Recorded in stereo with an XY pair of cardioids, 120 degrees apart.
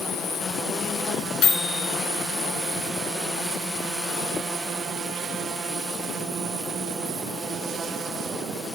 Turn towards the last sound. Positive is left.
turn(degrees=60)